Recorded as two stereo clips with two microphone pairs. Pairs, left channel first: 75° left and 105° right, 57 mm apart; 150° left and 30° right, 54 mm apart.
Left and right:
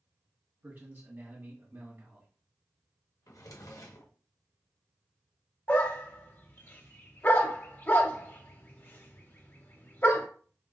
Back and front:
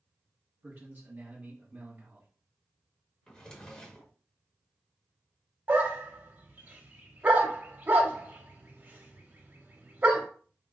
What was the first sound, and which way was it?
A man speaking, 65° right.